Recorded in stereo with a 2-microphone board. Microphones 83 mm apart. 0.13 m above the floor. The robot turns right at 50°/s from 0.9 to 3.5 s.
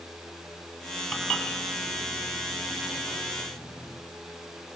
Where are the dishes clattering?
Centre (ahead or behind), 2.5 m; by 4.0 s 50° left (ahead or behind), 2.5 m.